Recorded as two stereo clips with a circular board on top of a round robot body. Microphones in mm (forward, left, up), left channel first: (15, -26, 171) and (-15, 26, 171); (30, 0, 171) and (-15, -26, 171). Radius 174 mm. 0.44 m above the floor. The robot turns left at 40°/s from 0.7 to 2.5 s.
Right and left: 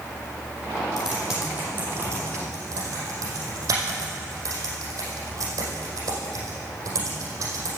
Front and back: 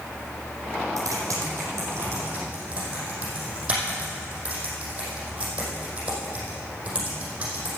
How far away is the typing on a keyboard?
About 5 m.